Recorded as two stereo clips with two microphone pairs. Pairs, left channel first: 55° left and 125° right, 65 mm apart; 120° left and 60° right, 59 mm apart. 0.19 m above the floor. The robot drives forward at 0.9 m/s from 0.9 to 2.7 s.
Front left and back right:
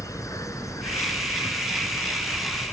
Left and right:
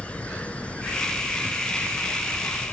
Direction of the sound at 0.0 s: 55° left.